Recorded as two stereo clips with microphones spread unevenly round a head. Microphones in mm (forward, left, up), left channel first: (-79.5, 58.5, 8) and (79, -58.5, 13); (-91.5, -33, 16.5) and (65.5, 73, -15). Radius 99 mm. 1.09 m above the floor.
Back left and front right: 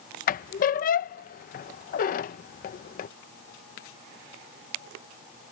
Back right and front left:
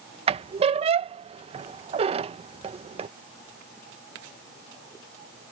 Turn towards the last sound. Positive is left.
turn(degrees=95)